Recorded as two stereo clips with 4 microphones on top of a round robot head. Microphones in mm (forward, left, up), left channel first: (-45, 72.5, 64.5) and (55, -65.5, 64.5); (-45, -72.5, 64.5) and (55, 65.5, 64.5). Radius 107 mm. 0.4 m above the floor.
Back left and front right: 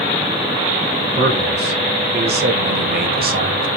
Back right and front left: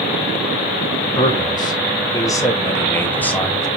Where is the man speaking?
65° right, 4 m; by 3.7 s 40° right, 2.5 m.